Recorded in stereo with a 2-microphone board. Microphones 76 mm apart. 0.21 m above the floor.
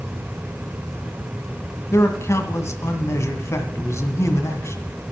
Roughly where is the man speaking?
Left.